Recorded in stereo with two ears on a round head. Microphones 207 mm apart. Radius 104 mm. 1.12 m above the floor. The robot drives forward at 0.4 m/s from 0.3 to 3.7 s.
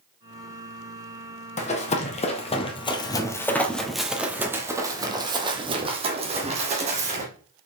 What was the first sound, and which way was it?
Running footsteps, 30° left (ahead or behind).